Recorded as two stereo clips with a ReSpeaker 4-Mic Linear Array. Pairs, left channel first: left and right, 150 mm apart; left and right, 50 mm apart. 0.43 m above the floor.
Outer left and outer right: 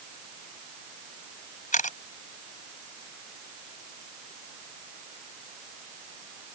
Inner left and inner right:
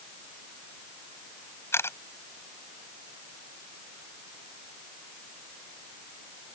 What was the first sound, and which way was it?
A camera shutter, 60° left (ahead or behind).